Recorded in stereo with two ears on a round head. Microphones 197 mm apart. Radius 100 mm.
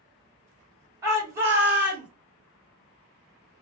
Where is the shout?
15° right (ahead or behind), 2.5 m; by 2.1 s 5° right (ahead or behind), 2.5 m.